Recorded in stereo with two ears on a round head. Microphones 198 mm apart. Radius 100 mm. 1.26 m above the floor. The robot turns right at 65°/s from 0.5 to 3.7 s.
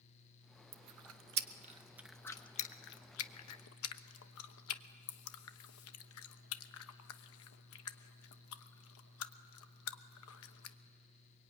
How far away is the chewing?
About 1.0 m.